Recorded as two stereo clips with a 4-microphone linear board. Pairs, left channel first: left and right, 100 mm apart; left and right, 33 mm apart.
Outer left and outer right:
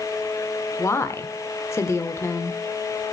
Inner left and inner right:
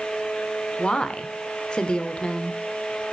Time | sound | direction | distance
0.8 | a woman speaking | 30° left (ahead or behind) | 1.1 m